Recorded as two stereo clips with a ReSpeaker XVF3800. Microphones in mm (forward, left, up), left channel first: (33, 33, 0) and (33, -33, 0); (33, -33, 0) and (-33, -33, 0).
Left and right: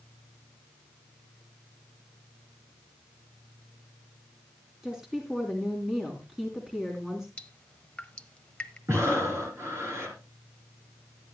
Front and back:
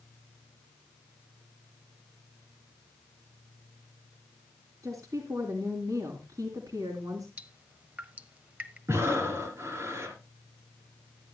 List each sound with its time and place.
4.8 s a woman speaking: 170° right, 3 m
7.4 s dripping: 140° left, 0.9 m
8.9 s breathing: 135° right, 4.5 m